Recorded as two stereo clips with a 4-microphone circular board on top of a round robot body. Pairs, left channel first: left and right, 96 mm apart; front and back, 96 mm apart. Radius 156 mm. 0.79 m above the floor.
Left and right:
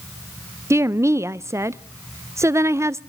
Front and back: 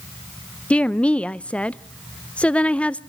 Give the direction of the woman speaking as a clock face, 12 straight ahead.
2 o'clock.